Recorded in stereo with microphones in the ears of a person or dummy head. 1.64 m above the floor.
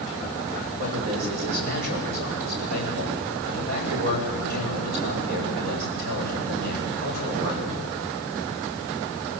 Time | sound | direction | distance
0.8 | a man speaking | 80° right | 8 m